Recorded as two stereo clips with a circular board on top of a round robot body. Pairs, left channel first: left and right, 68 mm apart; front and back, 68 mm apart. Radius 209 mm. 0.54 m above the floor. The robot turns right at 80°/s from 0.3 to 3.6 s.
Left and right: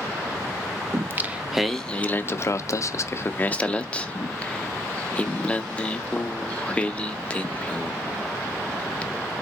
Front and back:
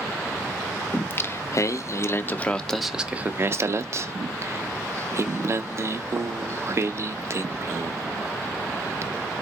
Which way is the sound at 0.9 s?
60° right.